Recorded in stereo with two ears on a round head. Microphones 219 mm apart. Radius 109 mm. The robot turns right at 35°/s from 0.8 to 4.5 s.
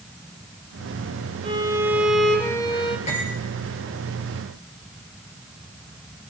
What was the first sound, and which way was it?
A violin, 25° right.